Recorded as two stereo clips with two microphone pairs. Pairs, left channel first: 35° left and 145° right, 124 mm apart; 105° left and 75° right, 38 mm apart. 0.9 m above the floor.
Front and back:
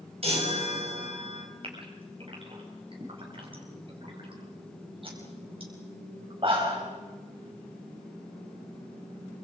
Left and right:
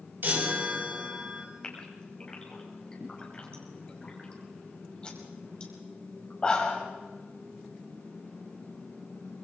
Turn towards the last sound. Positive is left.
turn(degrees=170)